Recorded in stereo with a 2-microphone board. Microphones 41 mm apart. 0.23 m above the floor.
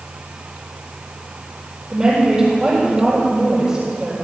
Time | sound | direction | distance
1.9 | a woman speaking | 15° right (ahead or behind) | 6.5 m